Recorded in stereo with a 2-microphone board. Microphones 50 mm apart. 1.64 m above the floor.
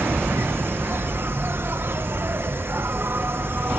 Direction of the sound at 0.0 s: 50° right (ahead or behind).